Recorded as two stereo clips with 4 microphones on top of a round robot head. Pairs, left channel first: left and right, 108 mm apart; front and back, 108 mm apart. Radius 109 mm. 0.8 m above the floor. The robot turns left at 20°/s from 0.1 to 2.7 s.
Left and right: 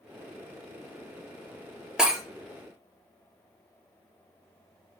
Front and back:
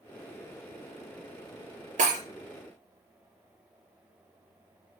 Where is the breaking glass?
175° right, 3 m; by 2.2 s straight behind, 3 m.